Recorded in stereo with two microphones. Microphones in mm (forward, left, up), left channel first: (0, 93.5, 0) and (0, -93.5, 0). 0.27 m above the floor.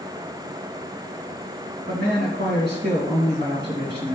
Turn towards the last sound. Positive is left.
turn(degrees=-65)  # may be behind; listen again after turning